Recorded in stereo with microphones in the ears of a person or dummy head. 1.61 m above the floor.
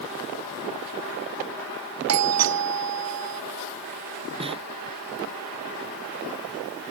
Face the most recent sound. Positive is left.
turn(degrees=-30)  # may be behind; listen again after turning